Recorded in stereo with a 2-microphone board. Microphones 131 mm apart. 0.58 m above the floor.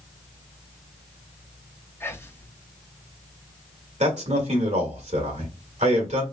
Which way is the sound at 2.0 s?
20° left (ahead or behind).